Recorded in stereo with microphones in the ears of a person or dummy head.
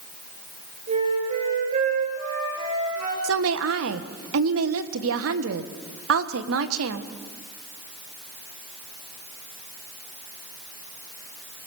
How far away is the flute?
About 7 m.